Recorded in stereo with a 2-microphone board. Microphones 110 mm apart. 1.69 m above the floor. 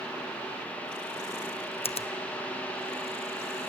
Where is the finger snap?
65° left (ahead or behind), 0.7 m.